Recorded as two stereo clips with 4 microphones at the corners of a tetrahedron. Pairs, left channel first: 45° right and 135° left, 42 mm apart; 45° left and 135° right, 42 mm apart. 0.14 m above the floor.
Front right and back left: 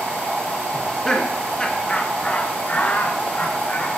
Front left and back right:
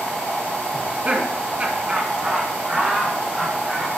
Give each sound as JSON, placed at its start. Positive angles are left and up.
{"t": 0.7, "sound": "laughter", "azimuth_deg": -120, "distance_m": 1.8}